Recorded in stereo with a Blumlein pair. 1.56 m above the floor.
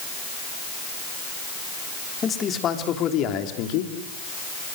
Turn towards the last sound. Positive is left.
turn(degrees=45)